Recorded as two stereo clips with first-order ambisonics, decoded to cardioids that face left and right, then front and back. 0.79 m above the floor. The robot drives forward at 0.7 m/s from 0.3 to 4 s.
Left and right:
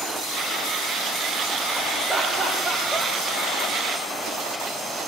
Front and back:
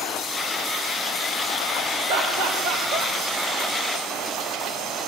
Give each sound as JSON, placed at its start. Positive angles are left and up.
{"t": 2.1, "sound": "laughter", "azimuth_deg": 170, "distance_m": 3.0}